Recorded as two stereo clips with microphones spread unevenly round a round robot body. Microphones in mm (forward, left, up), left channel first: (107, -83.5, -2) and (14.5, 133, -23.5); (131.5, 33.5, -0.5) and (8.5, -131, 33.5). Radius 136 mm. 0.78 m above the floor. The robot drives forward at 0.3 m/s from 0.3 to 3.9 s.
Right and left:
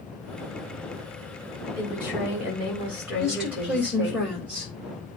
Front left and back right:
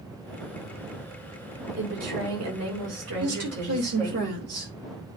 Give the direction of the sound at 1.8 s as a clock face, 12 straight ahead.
5 o'clock.